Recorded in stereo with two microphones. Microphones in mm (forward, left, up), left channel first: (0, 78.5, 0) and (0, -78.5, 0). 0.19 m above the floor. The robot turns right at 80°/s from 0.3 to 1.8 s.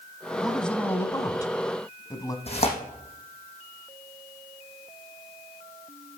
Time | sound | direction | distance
0.4 | a man speaking | 5° right (ahead or behind) | 1.1 m
2.5 | tearing paper | 40° left (ahead or behind) | 3.5 m